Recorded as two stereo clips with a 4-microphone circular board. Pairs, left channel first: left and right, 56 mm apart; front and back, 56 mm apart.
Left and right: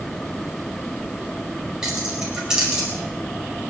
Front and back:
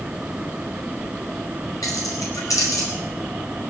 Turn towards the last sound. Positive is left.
turn(degrees=-10)